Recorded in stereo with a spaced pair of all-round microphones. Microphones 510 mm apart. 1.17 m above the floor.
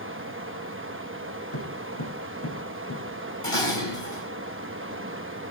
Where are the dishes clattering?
80° left, 5 m.